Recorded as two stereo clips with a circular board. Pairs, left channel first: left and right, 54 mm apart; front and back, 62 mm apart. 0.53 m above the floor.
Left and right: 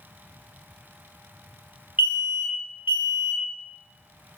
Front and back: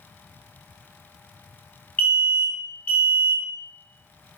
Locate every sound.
2.0 s an alarm: 45° right, 1.8 m